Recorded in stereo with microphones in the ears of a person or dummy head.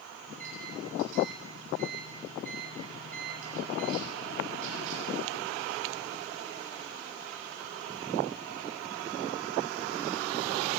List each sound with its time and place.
0.3 s a microwave: 35° right (ahead or behind), 8.5 m